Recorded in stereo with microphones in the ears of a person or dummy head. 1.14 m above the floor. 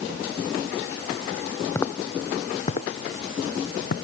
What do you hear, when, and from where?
1.8 s footsteps: 15° left (ahead or behind); by 4.0 s 55° left (ahead or behind)